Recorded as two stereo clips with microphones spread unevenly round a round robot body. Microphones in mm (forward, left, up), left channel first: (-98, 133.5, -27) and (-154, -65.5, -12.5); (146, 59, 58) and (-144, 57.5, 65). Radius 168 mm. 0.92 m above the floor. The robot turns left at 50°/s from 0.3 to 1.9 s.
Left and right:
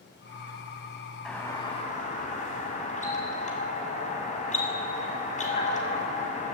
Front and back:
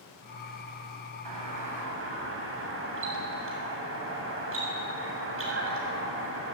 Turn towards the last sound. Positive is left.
turn(degrees=130)